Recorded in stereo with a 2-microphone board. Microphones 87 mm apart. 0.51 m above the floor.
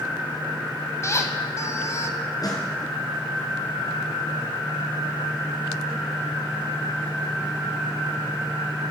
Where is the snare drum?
45° left (ahead or behind), 4 m.